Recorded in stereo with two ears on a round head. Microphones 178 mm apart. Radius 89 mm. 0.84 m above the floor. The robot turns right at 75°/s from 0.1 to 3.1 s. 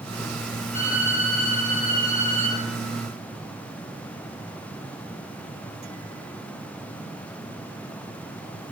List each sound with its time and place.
0.7 s a violin: 40° left, 2 m; by 2.6 s straight behind, 2 m